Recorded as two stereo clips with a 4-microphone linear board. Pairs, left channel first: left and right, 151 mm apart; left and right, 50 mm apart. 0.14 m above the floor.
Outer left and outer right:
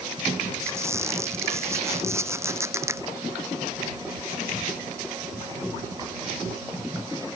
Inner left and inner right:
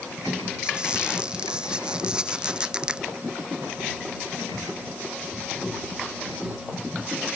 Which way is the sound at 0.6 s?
20° right (ahead or behind).